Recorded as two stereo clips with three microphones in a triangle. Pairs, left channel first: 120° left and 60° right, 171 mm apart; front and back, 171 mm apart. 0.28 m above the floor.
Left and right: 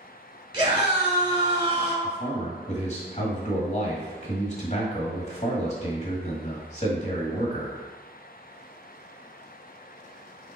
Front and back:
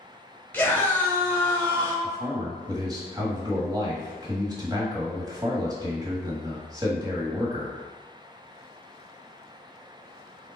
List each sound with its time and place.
0.5 s a scream: 70° right, 1.2 m
2.0 s a man speaking: 125° left, 1.1 m